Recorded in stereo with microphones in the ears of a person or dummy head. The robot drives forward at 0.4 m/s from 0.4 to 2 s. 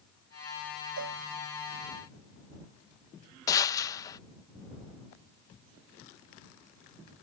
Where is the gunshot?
20° left (ahead or behind).